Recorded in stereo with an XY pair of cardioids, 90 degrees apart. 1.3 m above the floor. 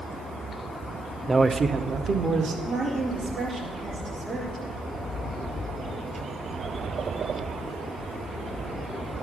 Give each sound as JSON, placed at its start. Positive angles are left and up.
{"t": 1.3, "sound": "a man speaking", "azimuth_deg": -20, "distance_m": 0.5}
{"t": 2.6, "sound": "a woman speaking", "azimuth_deg": -45, "distance_m": 3.5}